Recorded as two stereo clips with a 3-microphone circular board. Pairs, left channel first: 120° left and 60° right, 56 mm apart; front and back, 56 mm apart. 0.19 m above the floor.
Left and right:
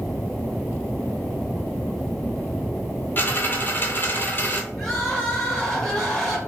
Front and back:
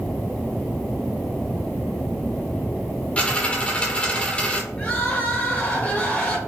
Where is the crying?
40° left, 1.1 m.